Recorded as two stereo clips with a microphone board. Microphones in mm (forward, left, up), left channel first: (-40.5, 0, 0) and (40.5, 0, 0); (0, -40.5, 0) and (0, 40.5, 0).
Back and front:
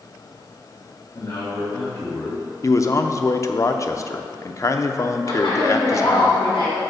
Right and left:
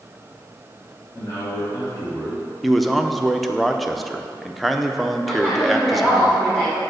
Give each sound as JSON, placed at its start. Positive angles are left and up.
{"t": 1.1, "sound": "a man speaking", "azimuth_deg": -140, "distance_m": 1.8}
{"t": 2.6, "sound": "a man speaking", "azimuth_deg": 180, "distance_m": 0.6}
{"t": 5.3, "sound": "a woman speaking", "azimuth_deg": -160, "distance_m": 2.5}